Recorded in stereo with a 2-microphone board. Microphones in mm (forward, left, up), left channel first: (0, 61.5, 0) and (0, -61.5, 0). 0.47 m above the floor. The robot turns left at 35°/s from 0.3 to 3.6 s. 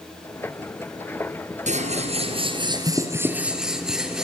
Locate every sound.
1.7 s scissors: 105° right, 3 m; by 4.2 s 175° right, 3 m